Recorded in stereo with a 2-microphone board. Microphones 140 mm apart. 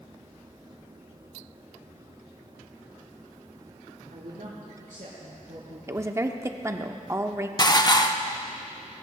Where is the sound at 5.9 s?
20° right (ahead or behind), 0.7 m.